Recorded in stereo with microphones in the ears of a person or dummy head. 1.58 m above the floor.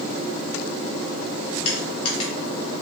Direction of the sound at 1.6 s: 30° left (ahead or behind).